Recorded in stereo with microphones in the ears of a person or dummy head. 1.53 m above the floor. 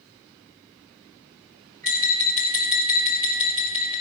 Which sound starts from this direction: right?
Tapping, at 1.8 s.